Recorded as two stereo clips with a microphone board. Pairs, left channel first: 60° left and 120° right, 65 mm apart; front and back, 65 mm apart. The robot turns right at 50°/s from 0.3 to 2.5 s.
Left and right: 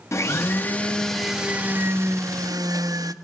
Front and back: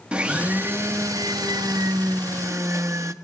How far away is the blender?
About 1.0 m.